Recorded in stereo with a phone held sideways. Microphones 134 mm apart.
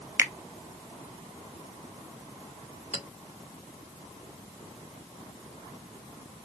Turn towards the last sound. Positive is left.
turn(degrees=50)  # may be behind; listen again after turning